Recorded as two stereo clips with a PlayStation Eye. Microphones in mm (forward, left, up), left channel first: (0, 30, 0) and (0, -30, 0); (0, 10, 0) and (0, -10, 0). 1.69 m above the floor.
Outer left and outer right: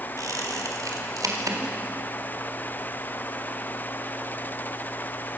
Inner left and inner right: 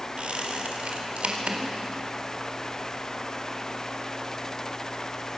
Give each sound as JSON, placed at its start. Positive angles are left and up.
{"t": 0.2, "sound": "a squeak", "side_deg": -80, "distance_m": 4.0}